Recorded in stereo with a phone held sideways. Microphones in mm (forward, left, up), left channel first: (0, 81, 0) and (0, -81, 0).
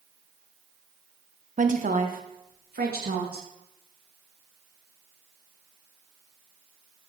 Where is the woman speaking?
50° right (ahead or behind), 1.0 m; by 3.5 s 70° right (ahead or behind), 2.5 m.